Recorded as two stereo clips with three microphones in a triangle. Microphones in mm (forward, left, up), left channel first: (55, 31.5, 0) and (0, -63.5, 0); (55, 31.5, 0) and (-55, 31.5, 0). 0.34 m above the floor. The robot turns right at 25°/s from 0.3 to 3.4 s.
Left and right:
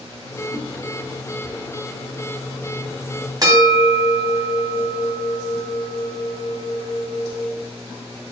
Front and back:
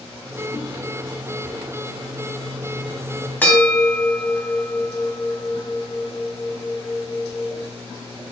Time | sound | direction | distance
0.5 | a whoosh | 160° right | 4 m
3.4 | a bell | 70° right | 2.5 m